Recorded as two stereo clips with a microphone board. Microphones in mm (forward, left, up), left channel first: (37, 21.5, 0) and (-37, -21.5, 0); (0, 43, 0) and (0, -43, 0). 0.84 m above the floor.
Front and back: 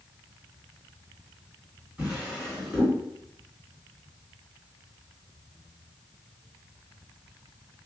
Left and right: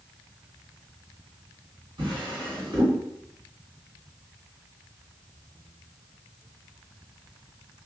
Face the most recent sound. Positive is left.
turn(degrees=-70)